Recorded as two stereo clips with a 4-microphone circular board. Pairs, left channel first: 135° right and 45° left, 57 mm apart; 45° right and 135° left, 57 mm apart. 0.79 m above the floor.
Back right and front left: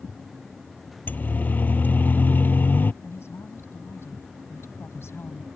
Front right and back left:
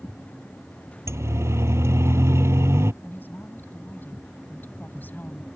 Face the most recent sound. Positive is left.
turn(degrees=-100)